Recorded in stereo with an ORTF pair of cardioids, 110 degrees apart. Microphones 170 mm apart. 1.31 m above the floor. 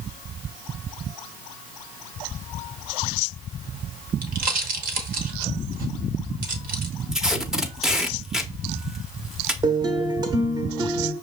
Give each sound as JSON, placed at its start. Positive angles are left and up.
{"t": 4.2, "sound": "a pop", "azimuth_deg": -60, "distance_m": 1.1}
{"t": 7.1, "sound": "tape being pulled", "azimuth_deg": -5, "distance_m": 0.6}
{"t": 9.6, "sound": "a guitar", "azimuth_deg": -25, "distance_m": 0.8}